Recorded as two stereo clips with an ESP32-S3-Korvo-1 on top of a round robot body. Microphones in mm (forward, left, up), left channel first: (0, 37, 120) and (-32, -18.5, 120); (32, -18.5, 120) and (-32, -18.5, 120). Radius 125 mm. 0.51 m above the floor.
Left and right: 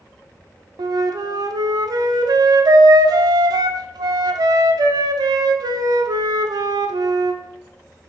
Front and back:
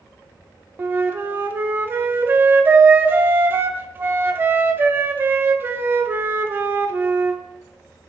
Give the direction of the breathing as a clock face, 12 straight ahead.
No breathing in this recording.